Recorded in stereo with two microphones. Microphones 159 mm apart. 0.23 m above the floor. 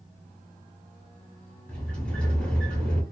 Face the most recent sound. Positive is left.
turn(degrees=10)  # may be behind; listen again after turning